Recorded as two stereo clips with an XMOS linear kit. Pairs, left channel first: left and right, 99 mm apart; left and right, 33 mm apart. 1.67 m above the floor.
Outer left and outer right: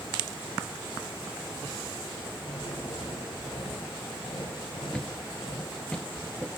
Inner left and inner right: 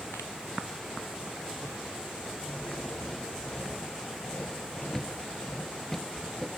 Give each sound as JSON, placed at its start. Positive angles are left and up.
{"t": 2.5, "sound": "a drill", "side_deg": 70, "distance_m": 6.5}
{"t": 4.9, "sound": "a thud", "side_deg": 10, "distance_m": 1.8}